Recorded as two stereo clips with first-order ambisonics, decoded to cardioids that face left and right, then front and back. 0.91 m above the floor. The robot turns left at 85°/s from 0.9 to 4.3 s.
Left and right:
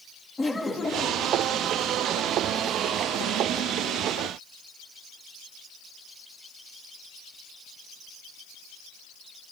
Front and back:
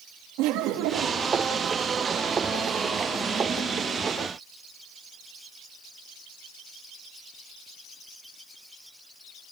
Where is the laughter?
170° left, 1.5 m; by 1.3 s 135° left, 1.5 m.